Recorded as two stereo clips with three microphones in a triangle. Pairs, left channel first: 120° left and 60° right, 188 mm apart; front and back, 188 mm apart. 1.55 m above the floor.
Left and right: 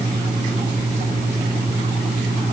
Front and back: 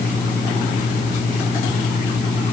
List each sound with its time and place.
Only background noise.